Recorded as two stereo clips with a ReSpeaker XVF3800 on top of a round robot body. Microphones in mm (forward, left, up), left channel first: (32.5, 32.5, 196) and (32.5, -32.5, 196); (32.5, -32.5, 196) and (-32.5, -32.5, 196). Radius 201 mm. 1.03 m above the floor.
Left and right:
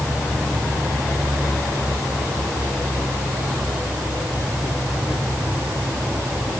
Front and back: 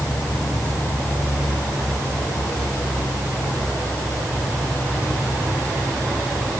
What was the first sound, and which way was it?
Only background noise.